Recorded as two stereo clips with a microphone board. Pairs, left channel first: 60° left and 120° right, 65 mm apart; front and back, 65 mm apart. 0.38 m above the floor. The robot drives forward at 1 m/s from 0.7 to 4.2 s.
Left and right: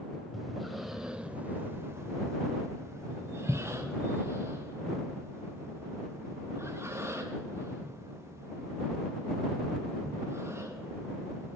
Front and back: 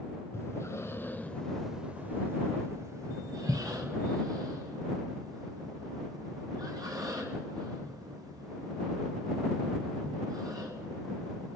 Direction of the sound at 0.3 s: 35° right.